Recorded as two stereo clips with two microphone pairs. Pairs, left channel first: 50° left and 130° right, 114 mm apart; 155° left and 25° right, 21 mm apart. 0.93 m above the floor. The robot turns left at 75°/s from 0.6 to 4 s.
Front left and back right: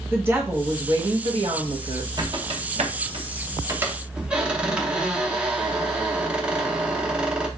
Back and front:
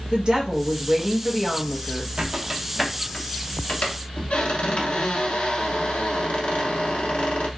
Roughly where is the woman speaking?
Ahead right.